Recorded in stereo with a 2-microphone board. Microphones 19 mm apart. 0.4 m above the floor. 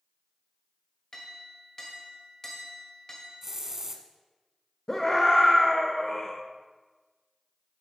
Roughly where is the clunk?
No clunk in this recording.